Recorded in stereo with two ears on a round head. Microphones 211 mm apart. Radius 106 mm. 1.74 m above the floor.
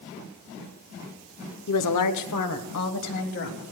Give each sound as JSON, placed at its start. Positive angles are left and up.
{"t": 1.7, "sound": "a woman speaking", "side_deg": 75, "distance_m": 1.0}